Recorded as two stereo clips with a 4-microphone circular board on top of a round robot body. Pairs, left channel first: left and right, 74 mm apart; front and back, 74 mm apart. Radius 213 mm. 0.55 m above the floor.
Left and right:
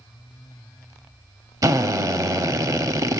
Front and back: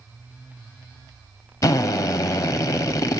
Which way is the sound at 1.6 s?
45° right.